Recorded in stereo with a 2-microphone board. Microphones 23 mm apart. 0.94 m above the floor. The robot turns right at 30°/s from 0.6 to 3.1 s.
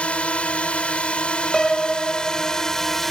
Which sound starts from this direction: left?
A drone, at 0.0 s.